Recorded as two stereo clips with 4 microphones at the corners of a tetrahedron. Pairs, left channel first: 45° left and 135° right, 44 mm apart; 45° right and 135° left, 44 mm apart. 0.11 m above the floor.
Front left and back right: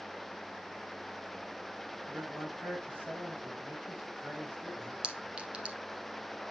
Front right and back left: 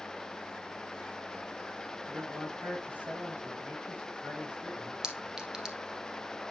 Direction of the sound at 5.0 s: 170° right.